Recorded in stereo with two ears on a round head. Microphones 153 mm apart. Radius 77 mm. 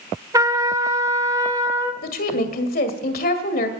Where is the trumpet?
20° right (ahead or behind), 1.1 m.